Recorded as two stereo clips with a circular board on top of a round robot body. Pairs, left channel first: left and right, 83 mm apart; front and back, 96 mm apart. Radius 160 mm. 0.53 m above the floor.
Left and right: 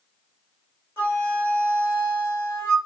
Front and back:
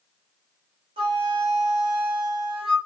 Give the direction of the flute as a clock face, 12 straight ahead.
7 o'clock.